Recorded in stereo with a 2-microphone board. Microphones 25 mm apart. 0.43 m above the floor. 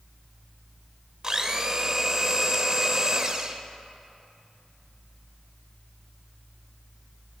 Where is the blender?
25° right (ahead or behind), 0.5 m.